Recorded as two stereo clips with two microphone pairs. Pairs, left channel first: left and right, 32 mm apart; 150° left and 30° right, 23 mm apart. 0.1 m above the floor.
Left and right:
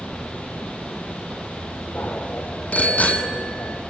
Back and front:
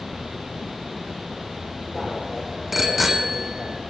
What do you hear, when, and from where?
1.9 s a bicycle bell: 55° left, 3 m